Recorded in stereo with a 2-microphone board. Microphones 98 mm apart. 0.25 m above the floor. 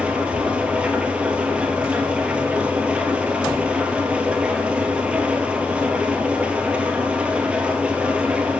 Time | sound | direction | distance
0.0 | an engine running | 10° right (ahead or behind) | 1.3 m